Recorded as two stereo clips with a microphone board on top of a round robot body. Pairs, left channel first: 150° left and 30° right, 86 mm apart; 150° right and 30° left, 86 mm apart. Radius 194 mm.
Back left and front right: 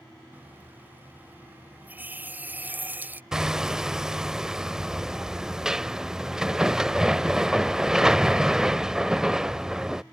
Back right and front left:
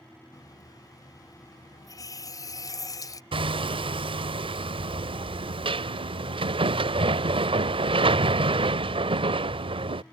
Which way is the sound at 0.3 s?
100° right.